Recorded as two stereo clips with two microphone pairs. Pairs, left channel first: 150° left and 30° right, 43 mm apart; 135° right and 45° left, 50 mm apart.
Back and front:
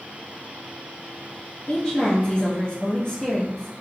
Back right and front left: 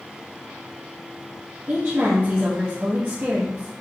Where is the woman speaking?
85° left, 1.3 m.